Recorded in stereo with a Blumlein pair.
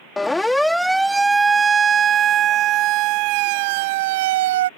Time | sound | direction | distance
0.2 | a siren | 10° left | ?